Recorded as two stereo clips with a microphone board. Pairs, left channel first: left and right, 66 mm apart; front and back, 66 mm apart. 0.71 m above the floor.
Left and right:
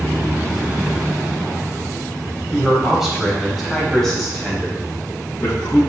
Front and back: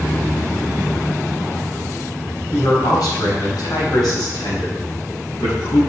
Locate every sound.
2.5 s a man speaking: 5° right, 4 m; by 5.8 s 20° left, 5 m